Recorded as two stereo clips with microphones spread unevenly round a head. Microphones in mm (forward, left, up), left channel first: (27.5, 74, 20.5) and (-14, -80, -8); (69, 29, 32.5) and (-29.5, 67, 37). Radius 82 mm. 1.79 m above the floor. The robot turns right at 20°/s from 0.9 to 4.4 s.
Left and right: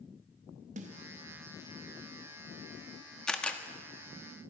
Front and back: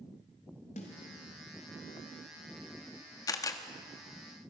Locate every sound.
0.8 s a snare drum: 60° right, 3 m
3.3 s a camera shutter: 10° left, 1.4 m; by 3.6 s 15° left, 1.4 m